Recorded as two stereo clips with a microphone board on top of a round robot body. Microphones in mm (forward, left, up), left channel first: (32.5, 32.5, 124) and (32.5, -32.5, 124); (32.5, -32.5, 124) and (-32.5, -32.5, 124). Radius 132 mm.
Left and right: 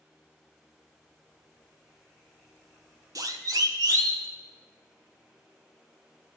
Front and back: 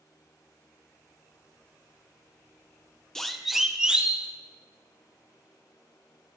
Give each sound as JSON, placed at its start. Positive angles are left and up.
{"t": 3.1, "sound": "a siren", "azimuth_deg": -80, "distance_m": 2.0}